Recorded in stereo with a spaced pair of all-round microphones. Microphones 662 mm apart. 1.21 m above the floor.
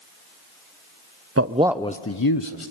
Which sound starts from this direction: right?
A man speaking, at 1.4 s.